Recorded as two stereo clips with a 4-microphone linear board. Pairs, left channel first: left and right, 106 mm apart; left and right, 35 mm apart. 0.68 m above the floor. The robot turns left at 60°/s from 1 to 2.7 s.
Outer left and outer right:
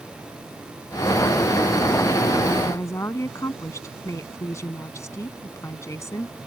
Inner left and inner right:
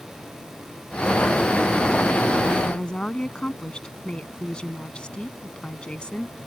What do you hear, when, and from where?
2.6 s a woman speaking: 20° left (ahead or behind); by 6.3 s 25° left (ahead or behind)